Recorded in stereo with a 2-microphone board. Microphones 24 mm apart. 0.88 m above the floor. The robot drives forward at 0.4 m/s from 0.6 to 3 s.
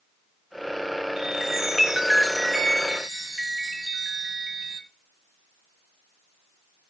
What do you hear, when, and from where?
1.2 s a chime: 20° right (ahead or behind), 1.1 m; by 4.8 s 10° right (ahead or behind), 1.8 m